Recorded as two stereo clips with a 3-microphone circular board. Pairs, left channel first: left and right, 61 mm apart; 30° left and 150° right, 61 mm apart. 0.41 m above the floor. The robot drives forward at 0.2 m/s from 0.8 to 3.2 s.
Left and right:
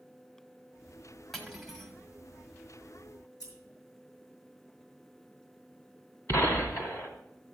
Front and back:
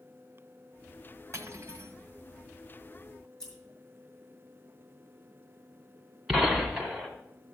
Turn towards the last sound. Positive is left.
turn(degrees=125)